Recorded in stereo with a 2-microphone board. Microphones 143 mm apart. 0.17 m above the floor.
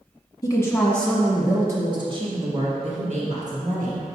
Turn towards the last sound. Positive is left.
turn(degrees=-65)  # may be behind; listen again after turning